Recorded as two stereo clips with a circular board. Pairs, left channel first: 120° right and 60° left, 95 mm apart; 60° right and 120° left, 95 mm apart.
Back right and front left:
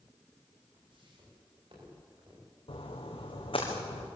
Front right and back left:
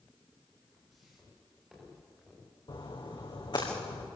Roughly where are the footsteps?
Ahead left.